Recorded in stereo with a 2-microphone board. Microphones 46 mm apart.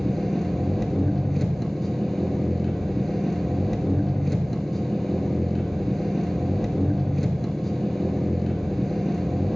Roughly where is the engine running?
Centre.